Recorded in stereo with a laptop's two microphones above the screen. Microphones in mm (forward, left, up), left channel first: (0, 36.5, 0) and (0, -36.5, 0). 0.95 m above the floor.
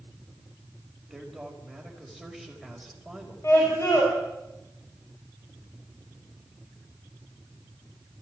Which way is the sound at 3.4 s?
40° left (ahead or behind).